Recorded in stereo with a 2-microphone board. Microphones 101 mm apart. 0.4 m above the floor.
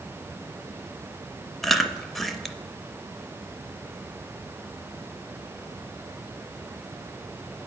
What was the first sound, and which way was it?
Chewing, centre (ahead or behind).